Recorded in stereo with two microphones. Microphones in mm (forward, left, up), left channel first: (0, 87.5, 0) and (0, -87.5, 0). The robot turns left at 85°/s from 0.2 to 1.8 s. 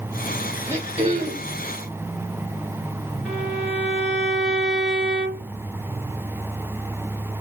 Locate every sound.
0.7 s throat clearing: 15° right, 1.5 m; by 1.6 s 85° right, 1.5 m
3.2 s a violin: 5° right (ahead or behind), 2.5 m